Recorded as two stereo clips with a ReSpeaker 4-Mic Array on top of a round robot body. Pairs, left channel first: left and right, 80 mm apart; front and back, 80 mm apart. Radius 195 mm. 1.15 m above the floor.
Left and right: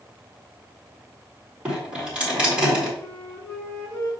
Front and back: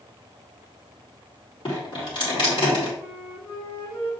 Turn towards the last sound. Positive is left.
turn(degrees=35)